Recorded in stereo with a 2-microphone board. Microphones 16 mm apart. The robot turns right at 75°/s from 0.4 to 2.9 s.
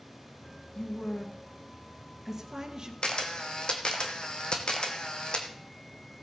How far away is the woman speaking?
About 1.9 m.